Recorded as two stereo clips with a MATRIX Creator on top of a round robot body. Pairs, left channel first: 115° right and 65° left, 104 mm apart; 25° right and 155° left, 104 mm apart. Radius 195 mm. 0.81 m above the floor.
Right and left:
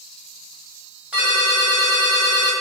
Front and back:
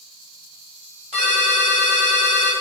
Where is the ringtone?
145° left, 1.7 m.